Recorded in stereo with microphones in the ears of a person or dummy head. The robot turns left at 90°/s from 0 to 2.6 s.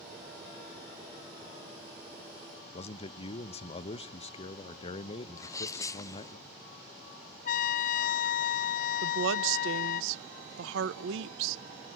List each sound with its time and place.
2.7 s a man speaking: 30° left (ahead or behind), 0.7 m
5.4 s a sneeze: 20° left (ahead or behind), 0.7 m
7.5 s a trumpet: 45° left (ahead or behind), 0.6 m
9.0 s a woman speaking: 75° right (ahead or behind), 0.8 m